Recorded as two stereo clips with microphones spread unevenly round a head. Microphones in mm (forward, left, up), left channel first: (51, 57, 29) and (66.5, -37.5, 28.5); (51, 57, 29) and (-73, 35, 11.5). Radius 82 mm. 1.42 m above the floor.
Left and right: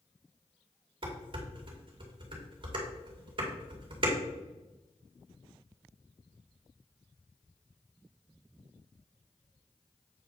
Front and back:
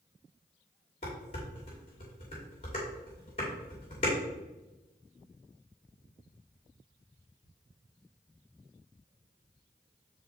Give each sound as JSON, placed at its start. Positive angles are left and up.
{"t": 1.0, "sound": "dishes clattering", "azimuth_deg": -50, "distance_m": 2.5}